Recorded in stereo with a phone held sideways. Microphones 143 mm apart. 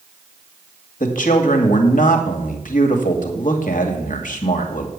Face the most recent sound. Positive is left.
turn(degrees=70)  # may be behind; listen again after turning